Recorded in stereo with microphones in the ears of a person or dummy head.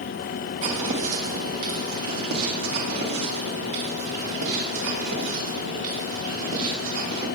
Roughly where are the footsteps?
Right.